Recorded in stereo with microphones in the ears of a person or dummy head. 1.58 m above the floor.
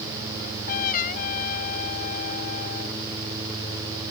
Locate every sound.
0.4 s a trumpet: 50° left (ahead or behind)